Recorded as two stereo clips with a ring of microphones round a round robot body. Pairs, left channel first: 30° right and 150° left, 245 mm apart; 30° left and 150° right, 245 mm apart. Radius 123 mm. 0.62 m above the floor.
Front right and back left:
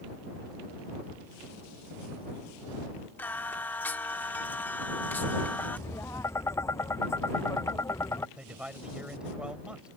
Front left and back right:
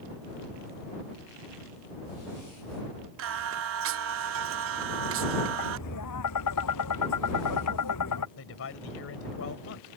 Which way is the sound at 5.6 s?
50° left.